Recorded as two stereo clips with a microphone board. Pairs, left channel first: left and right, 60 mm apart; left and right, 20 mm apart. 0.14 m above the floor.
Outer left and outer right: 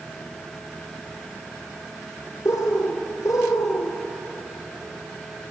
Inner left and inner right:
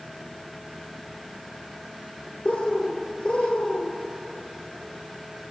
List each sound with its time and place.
2.5 s a bird: 70° left (ahead or behind), 0.7 m